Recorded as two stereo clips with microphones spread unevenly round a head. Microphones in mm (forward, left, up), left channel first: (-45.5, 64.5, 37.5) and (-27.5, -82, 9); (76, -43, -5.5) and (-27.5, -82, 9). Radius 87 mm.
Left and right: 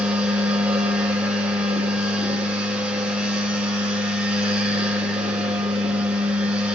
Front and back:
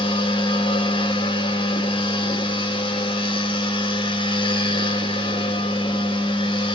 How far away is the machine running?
About 0.8 m.